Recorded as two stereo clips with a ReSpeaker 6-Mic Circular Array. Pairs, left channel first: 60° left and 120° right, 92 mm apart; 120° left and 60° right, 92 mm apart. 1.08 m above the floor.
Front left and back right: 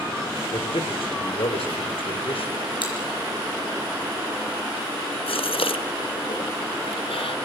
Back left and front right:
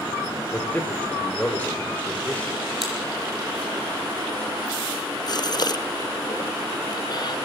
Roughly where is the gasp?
Left.